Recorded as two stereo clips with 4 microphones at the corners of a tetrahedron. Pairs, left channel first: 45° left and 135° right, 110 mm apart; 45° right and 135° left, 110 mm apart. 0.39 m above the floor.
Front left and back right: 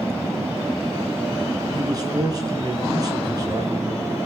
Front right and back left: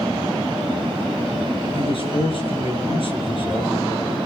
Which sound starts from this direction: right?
A man speaking, at 1.8 s.